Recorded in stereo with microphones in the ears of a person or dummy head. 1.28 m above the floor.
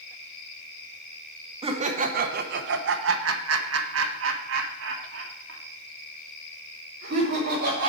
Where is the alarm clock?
No alarm clock in this recording.